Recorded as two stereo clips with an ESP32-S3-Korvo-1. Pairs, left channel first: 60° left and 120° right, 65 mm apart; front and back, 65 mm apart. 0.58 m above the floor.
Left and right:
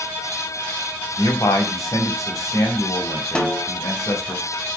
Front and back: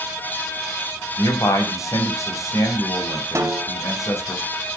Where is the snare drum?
135° left, 1.1 m.